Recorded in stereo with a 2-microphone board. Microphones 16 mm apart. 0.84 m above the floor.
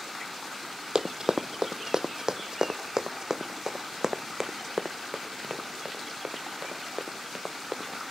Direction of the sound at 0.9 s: 45° right (ahead or behind).